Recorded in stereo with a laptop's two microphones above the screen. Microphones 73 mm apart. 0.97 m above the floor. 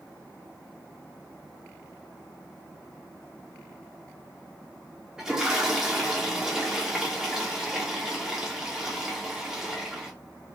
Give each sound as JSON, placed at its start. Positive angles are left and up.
{"t": 5.2, "sound": "a toilet flushing", "side_deg": -10, "distance_m": 1.0}